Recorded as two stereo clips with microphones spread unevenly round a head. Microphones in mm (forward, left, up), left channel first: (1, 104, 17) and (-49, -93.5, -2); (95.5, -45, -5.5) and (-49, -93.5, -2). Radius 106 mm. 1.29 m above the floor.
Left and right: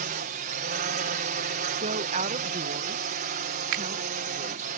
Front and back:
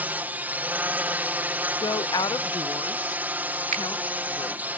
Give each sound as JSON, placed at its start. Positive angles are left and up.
{"t": 0.0, "sound": "a drone", "azimuth_deg": -90}
{"t": 1.8, "sound": "a woman speaking", "azimuth_deg": -45}
{"t": 3.7, "sound": "a finger snap", "azimuth_deg": -130}